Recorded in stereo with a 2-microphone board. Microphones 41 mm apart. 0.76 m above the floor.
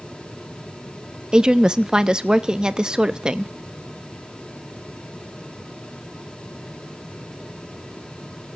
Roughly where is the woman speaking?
Right.